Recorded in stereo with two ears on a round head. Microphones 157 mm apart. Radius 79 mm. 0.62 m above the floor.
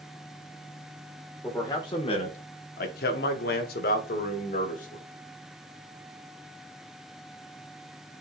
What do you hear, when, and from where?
1.4 s a man speaking: 15° left (ahead or behind), 1.5 m; by 5.0 s 50° left (ahead or behind), 2.5 m